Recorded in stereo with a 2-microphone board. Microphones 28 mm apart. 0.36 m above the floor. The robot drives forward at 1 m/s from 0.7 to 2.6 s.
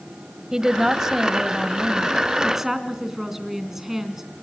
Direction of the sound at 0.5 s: 20° right (ahead or behind).